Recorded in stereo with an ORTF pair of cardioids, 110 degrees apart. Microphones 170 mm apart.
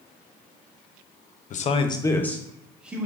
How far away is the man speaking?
About 0.6 m.